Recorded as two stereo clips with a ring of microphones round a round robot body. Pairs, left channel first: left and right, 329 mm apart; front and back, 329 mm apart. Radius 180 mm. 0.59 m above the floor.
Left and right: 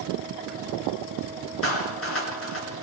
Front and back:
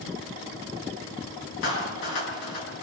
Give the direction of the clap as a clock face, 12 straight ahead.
11 o'clock.